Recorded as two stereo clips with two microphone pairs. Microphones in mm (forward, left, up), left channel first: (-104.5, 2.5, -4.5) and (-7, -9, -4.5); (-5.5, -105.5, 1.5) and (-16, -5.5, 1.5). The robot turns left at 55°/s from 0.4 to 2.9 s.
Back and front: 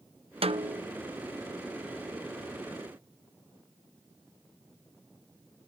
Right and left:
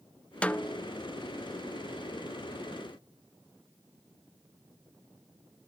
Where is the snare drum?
10° right; by 0.8 s 35° right.